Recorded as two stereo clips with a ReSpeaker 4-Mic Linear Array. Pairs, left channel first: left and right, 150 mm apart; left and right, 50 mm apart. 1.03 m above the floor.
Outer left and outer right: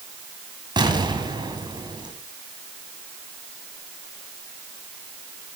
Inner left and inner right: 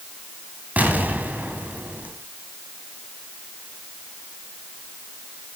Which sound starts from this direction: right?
An explosion, at 0.8 s.